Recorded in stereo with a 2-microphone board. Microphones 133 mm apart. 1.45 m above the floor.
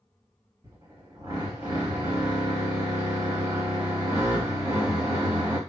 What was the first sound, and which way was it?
A drill, 30° right (ahead or behind).